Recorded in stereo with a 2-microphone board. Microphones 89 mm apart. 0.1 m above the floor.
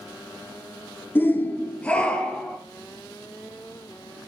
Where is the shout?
25° left (ahead or behind), 1.2 m; by 2.6 s 10° left (ahead or behind), 2.5 m.